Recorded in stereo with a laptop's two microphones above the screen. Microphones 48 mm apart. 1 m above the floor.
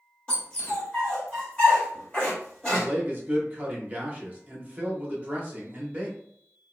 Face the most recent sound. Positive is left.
turn(degrees=-30)  # may be behind; listen again after turning